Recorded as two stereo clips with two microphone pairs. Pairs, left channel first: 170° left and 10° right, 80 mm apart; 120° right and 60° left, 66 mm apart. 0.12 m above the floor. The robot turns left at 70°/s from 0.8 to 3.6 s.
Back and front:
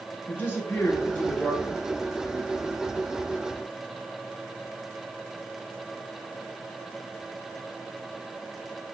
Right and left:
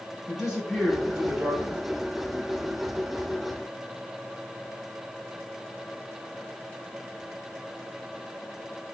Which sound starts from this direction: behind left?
A man speaking, at 0.3 s.